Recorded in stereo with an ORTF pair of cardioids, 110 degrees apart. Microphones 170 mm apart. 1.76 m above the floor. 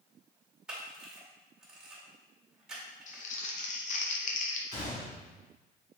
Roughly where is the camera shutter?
Ahead.